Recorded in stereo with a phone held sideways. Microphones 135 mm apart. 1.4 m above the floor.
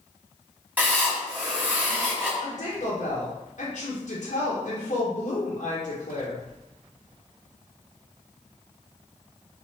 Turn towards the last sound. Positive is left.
turn(degrees=60)  # may be behind; listen again after turning